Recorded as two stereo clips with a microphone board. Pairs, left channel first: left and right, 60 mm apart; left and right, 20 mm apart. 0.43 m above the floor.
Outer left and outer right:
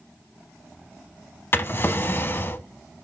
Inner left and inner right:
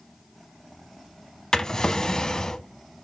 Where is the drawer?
35° left (ahead or behind), 0.7 m.